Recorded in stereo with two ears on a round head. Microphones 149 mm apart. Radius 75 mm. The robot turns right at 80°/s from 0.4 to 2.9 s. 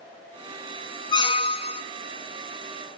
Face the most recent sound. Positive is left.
turn(degrees=-165)